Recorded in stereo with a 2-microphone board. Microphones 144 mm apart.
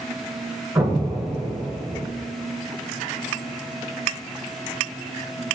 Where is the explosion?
20° right (ahead or behind), 0.6 m.